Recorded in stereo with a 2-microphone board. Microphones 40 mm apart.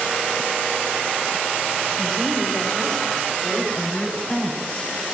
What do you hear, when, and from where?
2.0 s a woman speaking: centre (ahead or behind), 5 m; by 4.9 s 30° left (ahead or behind), 5.5 m